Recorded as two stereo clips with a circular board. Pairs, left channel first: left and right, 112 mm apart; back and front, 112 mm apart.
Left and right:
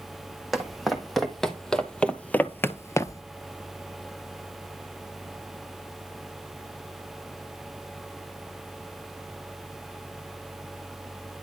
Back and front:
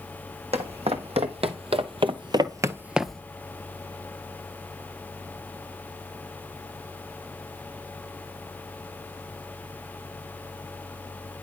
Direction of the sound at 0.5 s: Straight ahead.